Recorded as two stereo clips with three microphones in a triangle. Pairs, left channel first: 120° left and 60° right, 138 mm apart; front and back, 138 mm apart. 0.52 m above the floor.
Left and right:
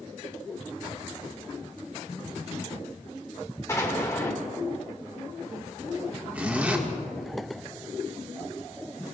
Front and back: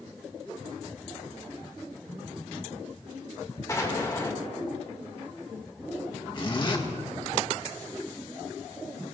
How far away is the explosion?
About 1.8 m.